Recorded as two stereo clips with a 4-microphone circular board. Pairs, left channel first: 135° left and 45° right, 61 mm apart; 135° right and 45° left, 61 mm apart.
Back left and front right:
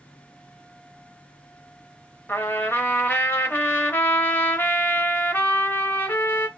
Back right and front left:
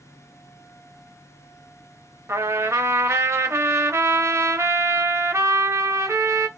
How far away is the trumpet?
About 0.6 m.